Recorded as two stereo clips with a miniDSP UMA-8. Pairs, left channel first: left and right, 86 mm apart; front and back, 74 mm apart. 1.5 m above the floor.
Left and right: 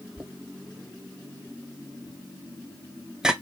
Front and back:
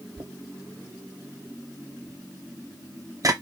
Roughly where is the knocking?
Behind.